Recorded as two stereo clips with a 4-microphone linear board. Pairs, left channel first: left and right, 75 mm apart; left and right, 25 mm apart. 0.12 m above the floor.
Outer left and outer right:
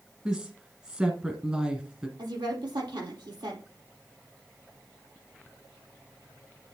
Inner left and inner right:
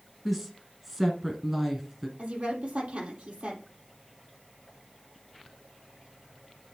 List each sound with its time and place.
0.2 s a woman speaking: 10° right (ahead or behind), 1.6 m
2.2 s a woman speaking: 70° right (ahead or behind), 4 m